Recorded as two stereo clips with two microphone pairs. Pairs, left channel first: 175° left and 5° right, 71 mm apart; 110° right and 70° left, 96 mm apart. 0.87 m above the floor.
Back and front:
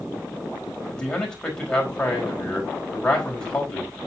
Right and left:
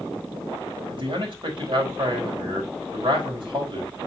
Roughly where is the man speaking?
Left.